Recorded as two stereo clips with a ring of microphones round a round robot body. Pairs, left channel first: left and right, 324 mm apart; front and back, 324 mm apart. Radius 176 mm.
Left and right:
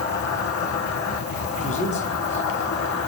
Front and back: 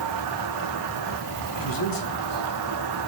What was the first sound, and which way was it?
An insect, 135° left.